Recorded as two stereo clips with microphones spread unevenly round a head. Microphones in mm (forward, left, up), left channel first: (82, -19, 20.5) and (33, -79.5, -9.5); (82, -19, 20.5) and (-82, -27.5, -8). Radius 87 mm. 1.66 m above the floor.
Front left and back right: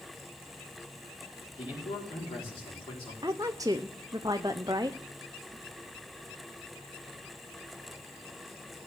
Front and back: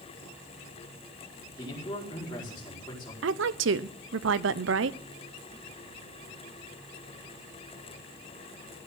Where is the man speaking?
70° left, 5 m.